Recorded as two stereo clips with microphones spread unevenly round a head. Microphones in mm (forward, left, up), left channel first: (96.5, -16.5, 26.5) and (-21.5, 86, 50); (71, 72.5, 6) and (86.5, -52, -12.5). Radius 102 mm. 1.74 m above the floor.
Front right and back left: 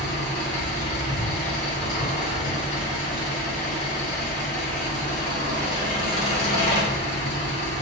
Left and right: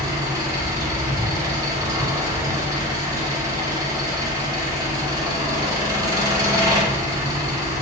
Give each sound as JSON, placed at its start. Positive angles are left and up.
{"t": 0.0, "sound": "an engine running", "azimuth_deg": -40, "distance_m": 1.3}